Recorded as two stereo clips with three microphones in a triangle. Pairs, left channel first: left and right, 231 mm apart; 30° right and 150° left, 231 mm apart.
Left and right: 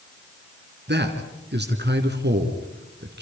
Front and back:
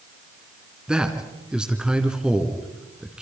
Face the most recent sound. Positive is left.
turn(degrees=-125)